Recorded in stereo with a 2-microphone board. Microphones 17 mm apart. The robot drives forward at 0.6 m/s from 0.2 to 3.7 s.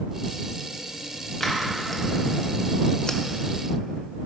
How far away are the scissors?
About 1.3 m.